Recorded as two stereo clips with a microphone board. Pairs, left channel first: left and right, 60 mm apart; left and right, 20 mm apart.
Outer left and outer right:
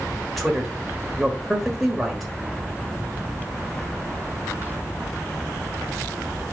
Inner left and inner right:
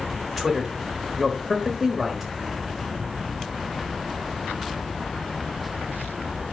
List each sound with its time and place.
0.4 s a man speaking: centre (ahead or behind), 1.2 m